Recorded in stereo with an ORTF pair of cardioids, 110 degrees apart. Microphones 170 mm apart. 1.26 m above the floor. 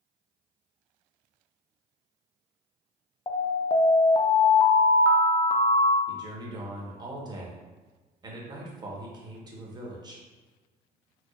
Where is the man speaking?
25° right, 1.0 m.